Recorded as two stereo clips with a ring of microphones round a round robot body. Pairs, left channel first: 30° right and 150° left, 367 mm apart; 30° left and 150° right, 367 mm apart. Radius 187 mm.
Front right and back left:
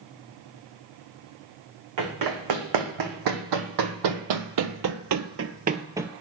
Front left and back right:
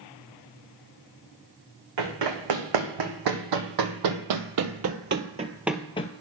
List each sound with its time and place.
2.0 s running footsteps: 175° right, 2 m; by 6.1 s 65° left, 0.6 m